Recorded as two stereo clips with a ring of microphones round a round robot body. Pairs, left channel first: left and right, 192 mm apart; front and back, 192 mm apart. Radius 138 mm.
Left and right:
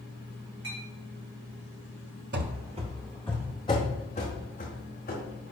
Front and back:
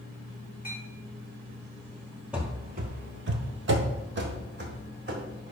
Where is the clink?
95° right, 3.5 m.